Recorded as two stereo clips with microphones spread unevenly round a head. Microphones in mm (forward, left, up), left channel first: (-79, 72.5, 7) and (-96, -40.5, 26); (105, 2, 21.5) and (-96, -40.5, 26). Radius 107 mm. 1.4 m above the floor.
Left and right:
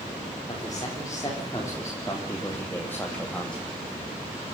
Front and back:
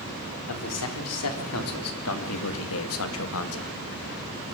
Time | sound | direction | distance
0.5 | a man speaking | 5° left | 4 m